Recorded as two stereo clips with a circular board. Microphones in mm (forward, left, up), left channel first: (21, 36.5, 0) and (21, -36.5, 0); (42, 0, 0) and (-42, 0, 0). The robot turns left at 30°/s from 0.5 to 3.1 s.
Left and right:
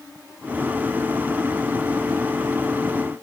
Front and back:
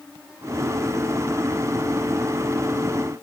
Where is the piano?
I don't hear a piano.